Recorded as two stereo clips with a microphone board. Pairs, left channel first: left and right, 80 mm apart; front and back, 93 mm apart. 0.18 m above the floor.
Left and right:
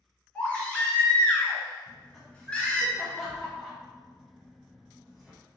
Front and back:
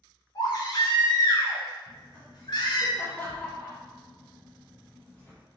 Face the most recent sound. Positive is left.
turn(degrees=-10)